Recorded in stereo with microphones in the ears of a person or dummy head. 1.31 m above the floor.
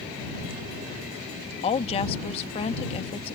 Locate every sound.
1.6 s a woman speaking: 30° left (ahead or behind)